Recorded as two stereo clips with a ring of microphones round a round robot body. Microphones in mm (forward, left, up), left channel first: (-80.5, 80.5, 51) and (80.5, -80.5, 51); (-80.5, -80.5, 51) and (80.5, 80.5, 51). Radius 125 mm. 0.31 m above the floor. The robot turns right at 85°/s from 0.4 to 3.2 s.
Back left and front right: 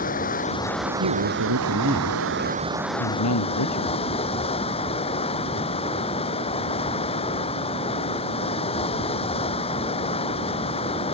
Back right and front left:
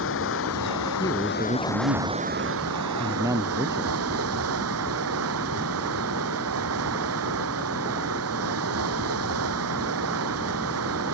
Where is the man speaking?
65° right; by 4.0 s 120° left.